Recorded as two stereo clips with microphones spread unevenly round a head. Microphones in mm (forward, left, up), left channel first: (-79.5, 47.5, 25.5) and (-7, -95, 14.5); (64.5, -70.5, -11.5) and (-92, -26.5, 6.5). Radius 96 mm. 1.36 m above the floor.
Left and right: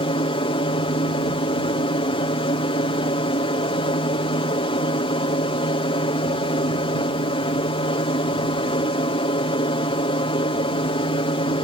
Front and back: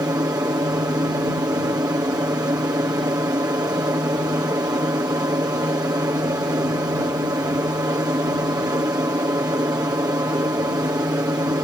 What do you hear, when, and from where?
0.0 s an aircraft: 105° left